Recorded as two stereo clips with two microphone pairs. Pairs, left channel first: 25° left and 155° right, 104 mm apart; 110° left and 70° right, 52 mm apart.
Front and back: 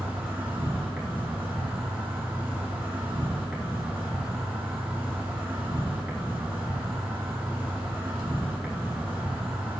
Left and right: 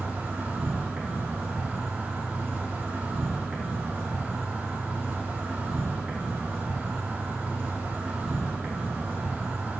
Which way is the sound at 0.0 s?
90° right.